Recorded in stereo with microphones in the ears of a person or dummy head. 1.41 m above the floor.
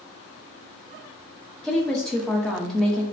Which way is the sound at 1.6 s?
5° left (ahead or behind).